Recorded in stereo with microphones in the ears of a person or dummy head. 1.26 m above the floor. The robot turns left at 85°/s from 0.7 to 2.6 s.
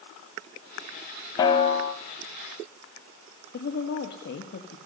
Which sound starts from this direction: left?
A woman speaking, at 3.5 s.